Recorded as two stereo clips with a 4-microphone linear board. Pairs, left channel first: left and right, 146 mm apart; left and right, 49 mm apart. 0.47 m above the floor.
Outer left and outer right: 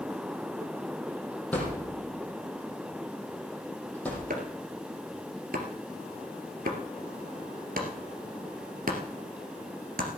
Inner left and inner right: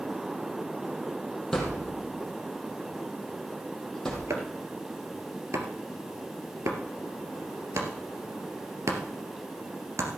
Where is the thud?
10° left (ahead or behind), 4.5 m.